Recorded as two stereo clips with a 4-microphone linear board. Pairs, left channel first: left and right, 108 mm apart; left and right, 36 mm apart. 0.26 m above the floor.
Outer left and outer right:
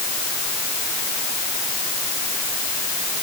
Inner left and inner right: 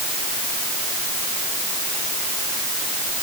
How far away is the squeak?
No squeak in this recording.